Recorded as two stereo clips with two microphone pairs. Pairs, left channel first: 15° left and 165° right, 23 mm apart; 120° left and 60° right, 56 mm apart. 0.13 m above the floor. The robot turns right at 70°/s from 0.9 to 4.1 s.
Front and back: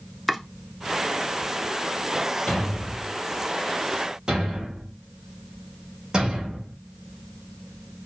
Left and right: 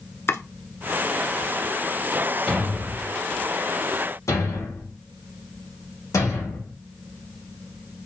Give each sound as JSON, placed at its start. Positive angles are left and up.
{"t": 0.3, "sound": "chopping", "azimuth_deg": 110, "distance_m": 0.8}
{"t": 2.5, "sound": "a thud", "azimuth_deg": 25, "distance_m": 2.5}